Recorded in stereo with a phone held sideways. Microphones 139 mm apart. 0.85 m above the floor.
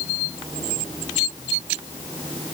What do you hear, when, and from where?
Only background noise.